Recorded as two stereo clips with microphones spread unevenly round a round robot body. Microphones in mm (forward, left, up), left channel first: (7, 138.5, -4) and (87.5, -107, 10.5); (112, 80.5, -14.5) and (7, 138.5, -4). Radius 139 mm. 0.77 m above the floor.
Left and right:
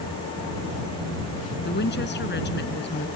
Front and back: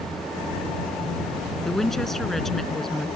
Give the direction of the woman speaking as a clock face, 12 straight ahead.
10 o'clock.